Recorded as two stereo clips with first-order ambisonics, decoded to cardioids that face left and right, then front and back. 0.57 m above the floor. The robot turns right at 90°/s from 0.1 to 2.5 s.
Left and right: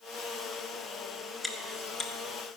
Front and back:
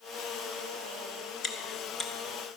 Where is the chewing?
5° left, 1.3 m; by 2.1 s 65° left, 1.3 m.